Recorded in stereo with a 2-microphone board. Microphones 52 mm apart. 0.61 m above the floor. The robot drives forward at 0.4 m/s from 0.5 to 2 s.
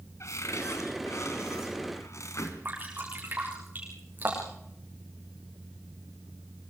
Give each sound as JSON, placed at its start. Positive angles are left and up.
{"t": 0.2, "sound": "a cupboard door", "side_deg": 80, "distance_m": 3.5}
{"t": 2.6, "sound": "dripping", "side_deg": -35, "distance_m": 8.5}